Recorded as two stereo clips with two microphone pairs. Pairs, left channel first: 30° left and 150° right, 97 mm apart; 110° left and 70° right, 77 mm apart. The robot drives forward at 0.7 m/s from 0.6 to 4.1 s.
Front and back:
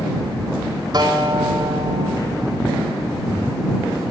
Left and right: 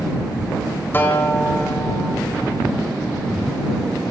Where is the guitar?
170° left, 2 m; by 2.6 s 175° left, 3 m.